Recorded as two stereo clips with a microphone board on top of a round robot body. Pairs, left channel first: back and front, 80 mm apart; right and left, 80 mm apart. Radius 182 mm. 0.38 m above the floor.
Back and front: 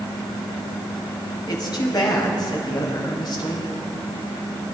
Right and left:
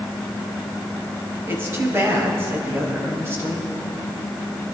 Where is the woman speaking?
150° left, 3.5 m.